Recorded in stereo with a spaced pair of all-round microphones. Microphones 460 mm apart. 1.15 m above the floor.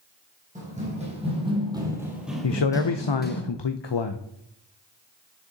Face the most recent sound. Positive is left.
turn(degrees=65)  # may be behind; listen again after turning